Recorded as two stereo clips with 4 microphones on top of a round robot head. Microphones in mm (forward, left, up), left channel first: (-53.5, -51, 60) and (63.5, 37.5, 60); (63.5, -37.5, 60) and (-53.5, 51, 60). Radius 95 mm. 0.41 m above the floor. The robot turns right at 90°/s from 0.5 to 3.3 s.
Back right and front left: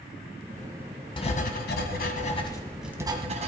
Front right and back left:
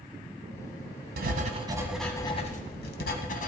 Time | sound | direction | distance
1.2 | writing | 160° left | 1.7 m